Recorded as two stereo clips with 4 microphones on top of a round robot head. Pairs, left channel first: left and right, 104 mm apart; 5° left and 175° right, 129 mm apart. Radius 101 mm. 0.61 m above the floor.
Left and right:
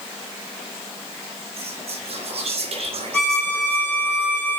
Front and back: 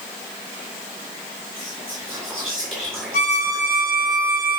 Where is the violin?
20° left, 3 m.